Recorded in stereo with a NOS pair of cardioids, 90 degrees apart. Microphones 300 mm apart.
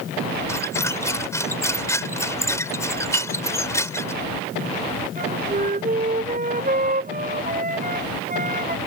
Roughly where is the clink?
Ahead right.